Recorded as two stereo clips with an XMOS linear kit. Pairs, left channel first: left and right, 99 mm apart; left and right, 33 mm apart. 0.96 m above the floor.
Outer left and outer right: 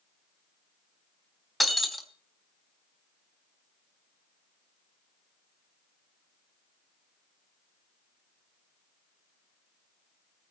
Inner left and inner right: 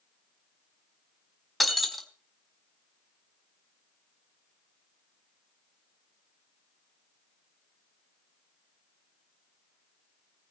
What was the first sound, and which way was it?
Breaking glass, centre (ahead or behind).